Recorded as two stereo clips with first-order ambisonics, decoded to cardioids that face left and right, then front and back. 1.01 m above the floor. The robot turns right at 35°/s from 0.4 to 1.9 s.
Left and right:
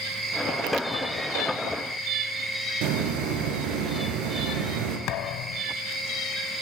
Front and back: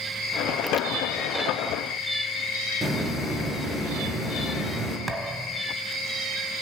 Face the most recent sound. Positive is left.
turn(degrees=105)